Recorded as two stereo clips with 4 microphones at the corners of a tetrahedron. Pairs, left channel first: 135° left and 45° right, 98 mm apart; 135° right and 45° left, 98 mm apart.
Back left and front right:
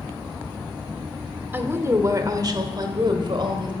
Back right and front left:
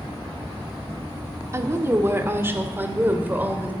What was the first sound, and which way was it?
A woman speaking, 10° left.